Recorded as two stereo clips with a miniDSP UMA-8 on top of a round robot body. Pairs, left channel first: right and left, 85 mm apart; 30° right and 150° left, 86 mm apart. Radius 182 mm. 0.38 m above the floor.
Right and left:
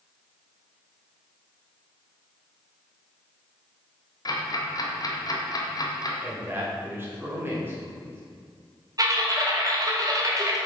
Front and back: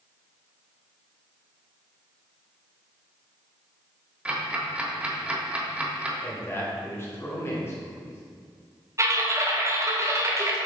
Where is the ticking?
135° right, 1.3 m.